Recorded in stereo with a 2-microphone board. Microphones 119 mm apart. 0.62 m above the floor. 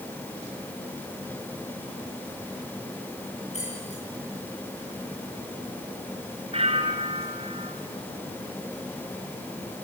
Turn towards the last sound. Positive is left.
turn(degrees=-60)  # may be behind; listen again after turning